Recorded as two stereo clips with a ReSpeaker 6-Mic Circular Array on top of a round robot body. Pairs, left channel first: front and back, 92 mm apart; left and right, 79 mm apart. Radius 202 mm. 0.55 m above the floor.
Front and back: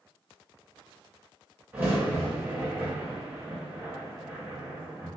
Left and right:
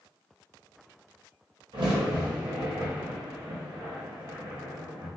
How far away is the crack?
About 0.6 m.